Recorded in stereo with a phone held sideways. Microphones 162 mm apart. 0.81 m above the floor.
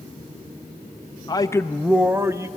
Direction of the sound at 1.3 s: 25° left (ahead or behind).